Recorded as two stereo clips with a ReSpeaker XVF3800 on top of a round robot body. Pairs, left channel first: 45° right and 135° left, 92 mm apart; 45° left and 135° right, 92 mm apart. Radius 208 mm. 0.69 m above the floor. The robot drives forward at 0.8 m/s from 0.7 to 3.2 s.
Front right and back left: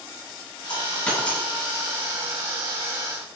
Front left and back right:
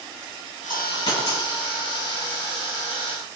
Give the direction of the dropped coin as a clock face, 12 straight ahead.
11 o'clock.